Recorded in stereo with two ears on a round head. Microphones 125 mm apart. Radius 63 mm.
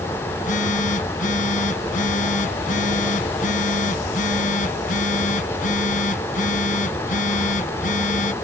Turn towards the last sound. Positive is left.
turn(degrees=65)  # may be behind; listen again after turning